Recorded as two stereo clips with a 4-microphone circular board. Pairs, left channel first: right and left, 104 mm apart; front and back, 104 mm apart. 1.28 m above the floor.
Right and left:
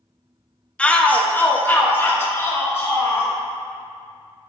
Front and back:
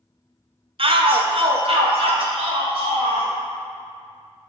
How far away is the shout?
About 0.6 m.